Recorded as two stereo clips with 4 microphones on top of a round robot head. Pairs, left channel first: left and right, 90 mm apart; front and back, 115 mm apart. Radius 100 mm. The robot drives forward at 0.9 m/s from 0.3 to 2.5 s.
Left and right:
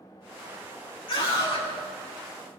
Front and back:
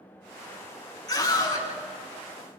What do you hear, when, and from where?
1.1 s a scream: 55° left, 7.5 m